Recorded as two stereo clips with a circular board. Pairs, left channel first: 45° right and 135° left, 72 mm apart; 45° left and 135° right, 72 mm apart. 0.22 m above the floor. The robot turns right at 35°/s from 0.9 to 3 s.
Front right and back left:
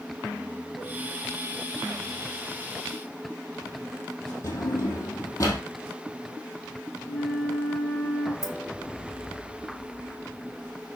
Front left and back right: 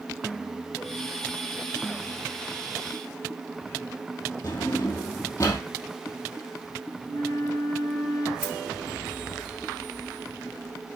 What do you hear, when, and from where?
4.4 s a drawer: straight ahead, 3 m
7.0 s a flute: 20° left, 4 m
8.4 s keys jangling: 155° left, 1.5 m